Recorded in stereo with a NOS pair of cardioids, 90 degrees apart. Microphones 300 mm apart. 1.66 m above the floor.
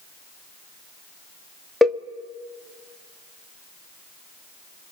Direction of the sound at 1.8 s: Straight ahead.